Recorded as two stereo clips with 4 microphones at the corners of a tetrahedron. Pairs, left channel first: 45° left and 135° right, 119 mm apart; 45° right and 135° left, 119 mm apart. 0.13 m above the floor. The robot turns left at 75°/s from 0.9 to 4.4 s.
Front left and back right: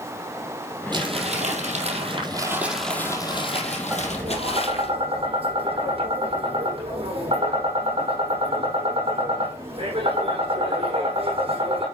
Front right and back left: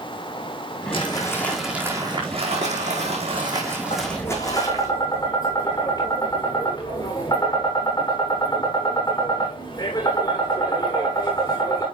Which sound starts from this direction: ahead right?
Tapping, at 3.9 s.